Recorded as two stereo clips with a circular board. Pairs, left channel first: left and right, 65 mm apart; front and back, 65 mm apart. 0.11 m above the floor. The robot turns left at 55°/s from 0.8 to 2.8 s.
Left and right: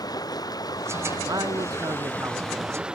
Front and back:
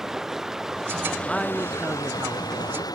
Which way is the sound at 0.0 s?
95° left.